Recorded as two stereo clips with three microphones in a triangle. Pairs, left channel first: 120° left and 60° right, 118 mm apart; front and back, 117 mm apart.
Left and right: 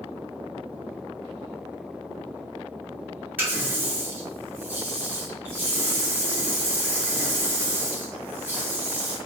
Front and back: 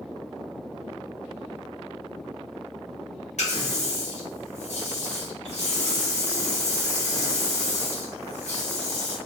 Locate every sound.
3.4 s a running tap: 15° left, 1.1 m